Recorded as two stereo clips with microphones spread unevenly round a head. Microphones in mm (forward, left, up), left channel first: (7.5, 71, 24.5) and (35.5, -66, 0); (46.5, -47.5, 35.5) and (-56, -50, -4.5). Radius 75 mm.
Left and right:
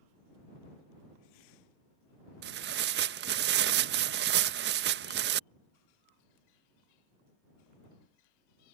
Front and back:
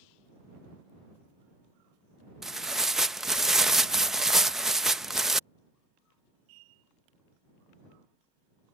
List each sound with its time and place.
2.4 s tearing paper: 90° right